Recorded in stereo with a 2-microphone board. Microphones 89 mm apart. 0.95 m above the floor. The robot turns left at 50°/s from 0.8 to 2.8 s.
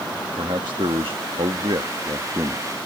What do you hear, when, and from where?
0.4 s a man speaking: 65° right; by 2.7 s 155° right